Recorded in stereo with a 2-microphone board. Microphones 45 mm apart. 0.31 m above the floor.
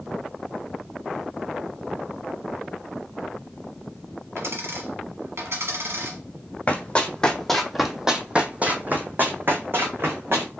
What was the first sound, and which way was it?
A dropped coin, 75° right (ahead or behind).